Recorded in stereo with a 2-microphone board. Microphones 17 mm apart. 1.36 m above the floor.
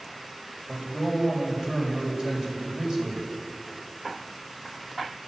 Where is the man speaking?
45° right (ahead or behind), 5.5 m.